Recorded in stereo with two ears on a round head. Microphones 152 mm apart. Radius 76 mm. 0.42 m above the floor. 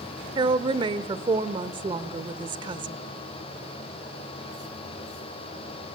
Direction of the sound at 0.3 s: 25° right (ahead or behind).